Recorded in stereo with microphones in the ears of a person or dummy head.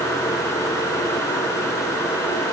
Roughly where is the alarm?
I don't hear an alarm.